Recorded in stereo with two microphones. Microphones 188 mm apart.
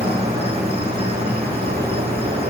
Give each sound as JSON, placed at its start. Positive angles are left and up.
{"t": 0.0, "sound": "an insect", "side_deg": -30, "distance_m": 3.0}